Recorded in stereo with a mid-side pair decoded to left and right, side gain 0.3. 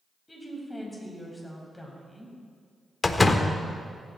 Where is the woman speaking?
15° left, 6 m; by 2.4 s 5° left, 6 m.